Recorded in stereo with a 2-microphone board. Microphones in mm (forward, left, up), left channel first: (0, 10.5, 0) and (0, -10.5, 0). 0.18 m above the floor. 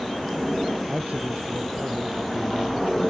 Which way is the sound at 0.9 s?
80° right.